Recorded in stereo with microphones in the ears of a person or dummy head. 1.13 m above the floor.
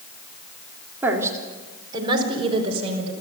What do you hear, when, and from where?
1.0 s a woman speaking: 15° right (ahead or behind), 3.5 m; by 3.1 s 35° right (ahead or behind), 5.5 m